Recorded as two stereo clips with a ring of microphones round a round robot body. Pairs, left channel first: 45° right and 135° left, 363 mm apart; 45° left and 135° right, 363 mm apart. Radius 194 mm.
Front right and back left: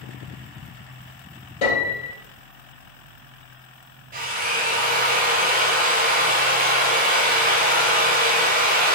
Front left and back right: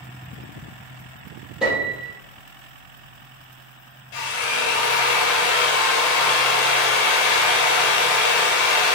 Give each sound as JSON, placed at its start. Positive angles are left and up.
{"t": 1.6, "sound": "a piano", "azimuth_deg": -45, "distance_m": 3.0}
{"t": 4.1, "sound": "a drill", "azimuth_deg": 65, "distance_m": 1.2}